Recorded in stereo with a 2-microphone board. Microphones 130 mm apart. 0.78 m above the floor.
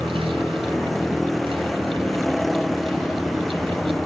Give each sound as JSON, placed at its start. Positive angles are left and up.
{"t": 0.0, "sound": "a vehicle", "side_deg": 0}